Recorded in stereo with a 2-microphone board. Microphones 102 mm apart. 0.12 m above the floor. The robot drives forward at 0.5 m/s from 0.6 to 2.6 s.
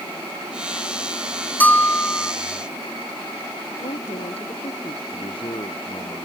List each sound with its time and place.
1.6 s a bell: 15° left (ahead or behind)
3.8 s a woman speaking: 85° left
5.1 s a man speaking: 55° left (ahead or behind)